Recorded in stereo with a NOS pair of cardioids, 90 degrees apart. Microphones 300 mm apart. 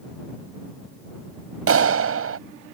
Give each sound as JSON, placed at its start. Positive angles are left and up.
{"t": 1.7, "sound": "a clap", "azimuth_deg": -50}